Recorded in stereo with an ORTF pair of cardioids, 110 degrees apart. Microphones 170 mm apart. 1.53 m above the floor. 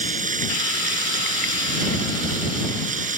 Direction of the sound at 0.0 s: 45° right.